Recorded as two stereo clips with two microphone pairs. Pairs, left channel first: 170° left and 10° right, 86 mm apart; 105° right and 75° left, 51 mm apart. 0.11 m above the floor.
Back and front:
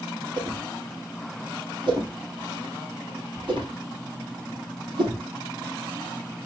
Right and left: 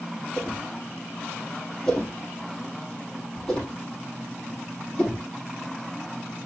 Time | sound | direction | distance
0.4 | a whoosh | 30° right | 4 m